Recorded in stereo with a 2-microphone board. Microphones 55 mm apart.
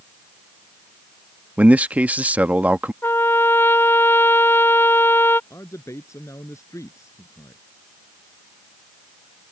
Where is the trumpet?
45° left (ahead or behind).